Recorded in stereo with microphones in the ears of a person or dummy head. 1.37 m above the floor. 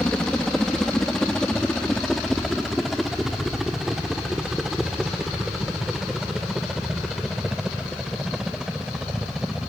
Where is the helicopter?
5° left (ahead or behind); by 9.7 s centre (ahead or behind).